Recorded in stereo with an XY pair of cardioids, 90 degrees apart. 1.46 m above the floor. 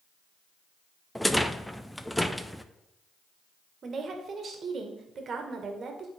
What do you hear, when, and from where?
1.1 s a rattle: 5° left, 0.6 m
3.8 s a woman speaking: 55° right, 1.6 m